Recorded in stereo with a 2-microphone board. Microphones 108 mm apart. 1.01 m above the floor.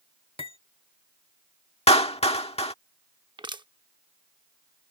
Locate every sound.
0.4 s cutlery clinking: 70° left (ahead or behind)
1.9 s a clap: 80° left
3.4 s crushing: 50° right (ahead or behind)